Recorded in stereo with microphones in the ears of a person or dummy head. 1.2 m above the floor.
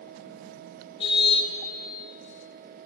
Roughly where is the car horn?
Left.